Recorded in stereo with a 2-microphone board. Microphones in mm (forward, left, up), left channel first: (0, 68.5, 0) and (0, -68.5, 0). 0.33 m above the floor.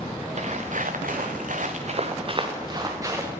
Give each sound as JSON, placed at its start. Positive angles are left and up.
{"t": 0.4, "sound": "footsteps", "side_deg": -55, "distance_m": 1.7}